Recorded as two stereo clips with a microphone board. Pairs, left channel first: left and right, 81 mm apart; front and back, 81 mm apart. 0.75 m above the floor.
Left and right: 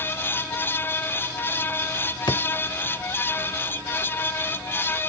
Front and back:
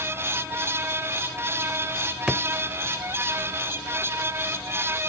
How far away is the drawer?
About 0.7 m.